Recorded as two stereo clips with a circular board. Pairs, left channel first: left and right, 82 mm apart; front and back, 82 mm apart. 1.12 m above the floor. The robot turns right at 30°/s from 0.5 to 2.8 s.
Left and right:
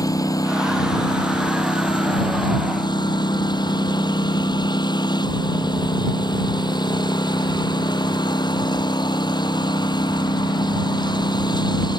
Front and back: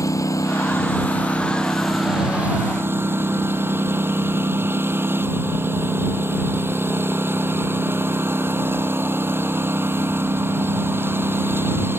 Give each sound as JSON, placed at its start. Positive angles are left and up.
{"t": 0.0, "sound": "a lawn mower", "azimuth_deg": 50}